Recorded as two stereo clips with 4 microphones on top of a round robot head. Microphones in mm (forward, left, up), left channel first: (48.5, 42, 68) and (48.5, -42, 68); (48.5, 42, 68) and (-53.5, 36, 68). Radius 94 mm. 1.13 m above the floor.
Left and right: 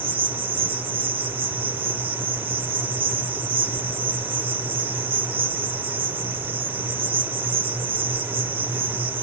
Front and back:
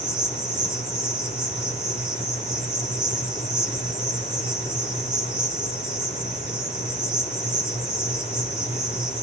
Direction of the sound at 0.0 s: 95° right.